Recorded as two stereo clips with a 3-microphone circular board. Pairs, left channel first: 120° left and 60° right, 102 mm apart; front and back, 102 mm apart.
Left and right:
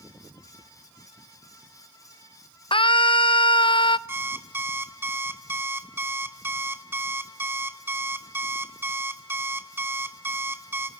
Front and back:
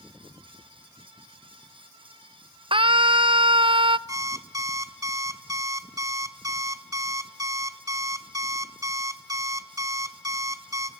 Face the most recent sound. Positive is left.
turn(degrees=-125)